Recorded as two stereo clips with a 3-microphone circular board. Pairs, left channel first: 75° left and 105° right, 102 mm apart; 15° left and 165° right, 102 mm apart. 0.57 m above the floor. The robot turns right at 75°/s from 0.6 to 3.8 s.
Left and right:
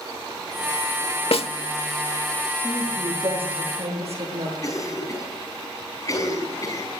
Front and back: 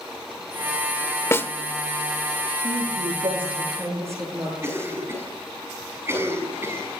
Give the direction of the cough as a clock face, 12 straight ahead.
8 o'clock.